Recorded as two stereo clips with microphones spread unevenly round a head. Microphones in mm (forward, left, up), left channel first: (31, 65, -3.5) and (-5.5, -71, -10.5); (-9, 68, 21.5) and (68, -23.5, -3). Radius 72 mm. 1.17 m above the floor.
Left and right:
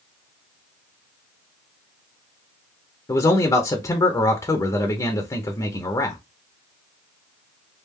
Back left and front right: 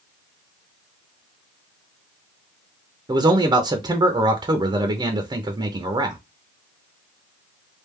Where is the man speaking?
5° left, 0.7 m.